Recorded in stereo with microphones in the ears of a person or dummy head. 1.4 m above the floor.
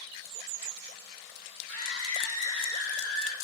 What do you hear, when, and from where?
1.7 s a scream: 80° left, 4 m; by 3.3 s 70° left (ahead or behind), 4.5 m